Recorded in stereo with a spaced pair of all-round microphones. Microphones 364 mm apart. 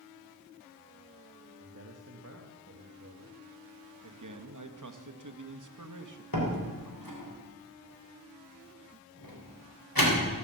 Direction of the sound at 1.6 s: 40° right (ahead or behind).